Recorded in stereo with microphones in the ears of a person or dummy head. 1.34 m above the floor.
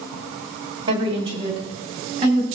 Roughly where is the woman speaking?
Right.